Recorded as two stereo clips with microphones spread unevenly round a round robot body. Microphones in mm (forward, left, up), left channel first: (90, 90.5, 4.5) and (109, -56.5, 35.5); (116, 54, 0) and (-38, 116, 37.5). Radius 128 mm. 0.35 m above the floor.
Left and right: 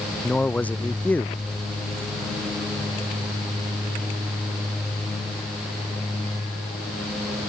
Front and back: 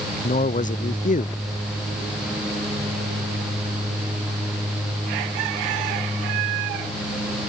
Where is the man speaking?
15° left.